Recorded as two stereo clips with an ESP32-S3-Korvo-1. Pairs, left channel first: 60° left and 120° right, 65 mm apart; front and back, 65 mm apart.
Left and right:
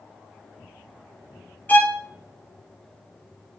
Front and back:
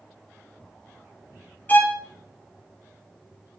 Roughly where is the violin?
Ahead left.